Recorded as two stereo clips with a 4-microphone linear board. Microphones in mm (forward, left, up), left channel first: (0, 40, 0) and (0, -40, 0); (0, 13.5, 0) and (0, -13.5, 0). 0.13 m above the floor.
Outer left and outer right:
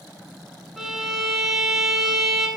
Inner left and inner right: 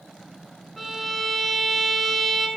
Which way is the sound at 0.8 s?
5° right (ahead or behind).